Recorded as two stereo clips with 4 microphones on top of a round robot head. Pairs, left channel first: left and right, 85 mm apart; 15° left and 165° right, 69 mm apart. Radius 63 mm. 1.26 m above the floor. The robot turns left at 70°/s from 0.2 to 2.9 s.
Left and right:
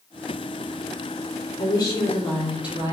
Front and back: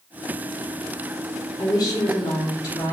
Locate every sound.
1.6 s a woman speaking: 60° left, 3.5 m; by 2.9 s 30° right, 3.5 m